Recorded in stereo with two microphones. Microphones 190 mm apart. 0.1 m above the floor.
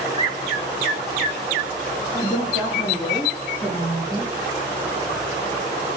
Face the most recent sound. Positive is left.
turn(degrees=-10)  # may be behind; listen again after turning